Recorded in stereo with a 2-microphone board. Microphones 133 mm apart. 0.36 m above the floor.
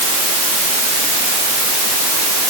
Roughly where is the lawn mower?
I don't hear a lawn mower.